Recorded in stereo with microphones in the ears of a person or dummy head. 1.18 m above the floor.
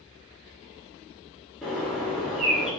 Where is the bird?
Centre (ahead or behind), 0.7 m.